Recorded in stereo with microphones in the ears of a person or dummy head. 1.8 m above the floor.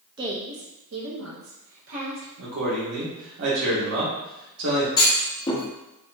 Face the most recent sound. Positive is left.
turn(degrees=20)  # may be behind; listen again after turning